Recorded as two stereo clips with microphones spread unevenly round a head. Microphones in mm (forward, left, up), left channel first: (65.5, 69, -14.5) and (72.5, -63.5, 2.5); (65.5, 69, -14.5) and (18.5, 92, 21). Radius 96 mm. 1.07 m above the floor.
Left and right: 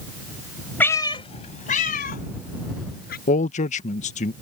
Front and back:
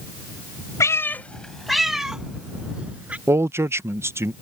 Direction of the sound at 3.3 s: 95° left.